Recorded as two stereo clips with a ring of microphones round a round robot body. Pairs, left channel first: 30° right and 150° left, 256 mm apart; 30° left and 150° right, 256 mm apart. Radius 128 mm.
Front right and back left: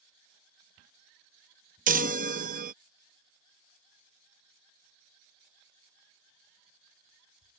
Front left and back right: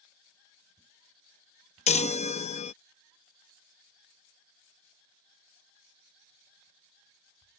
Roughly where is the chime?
Left.